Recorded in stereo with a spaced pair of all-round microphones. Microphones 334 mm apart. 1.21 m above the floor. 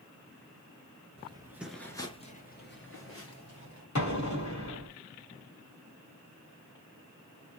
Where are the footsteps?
20° right (ahead or behind), 1.2 m; by 3.9 s 55° left (ahead or behind), 1.9 m.